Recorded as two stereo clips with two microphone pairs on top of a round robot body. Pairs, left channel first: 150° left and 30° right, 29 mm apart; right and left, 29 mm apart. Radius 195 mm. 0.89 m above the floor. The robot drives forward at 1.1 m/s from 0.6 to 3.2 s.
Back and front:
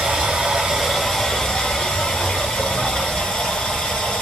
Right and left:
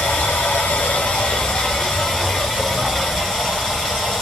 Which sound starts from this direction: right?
Running water, at 0.0 s.